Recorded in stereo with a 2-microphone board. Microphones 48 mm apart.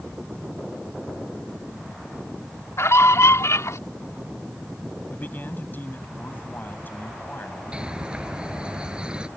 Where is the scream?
65° left (ahead or behind); by 3.8 s 75° left (ahead or behind).